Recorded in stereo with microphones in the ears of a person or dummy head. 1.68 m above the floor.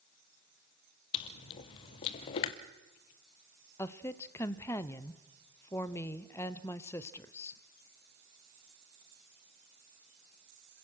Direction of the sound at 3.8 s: 15° left (ahead or behind).